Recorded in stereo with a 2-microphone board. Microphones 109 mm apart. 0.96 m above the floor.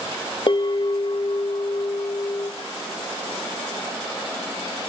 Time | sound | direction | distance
0.5 | a bell | 50° left (ahead or behind) | 1.1 m